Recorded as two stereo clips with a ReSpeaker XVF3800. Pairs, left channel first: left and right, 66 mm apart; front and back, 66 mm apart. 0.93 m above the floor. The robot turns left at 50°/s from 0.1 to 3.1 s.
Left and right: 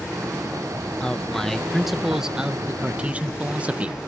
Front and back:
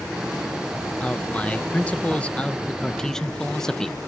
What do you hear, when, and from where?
1.0 s a man speaking: 40° left; by 4.0 s 65° right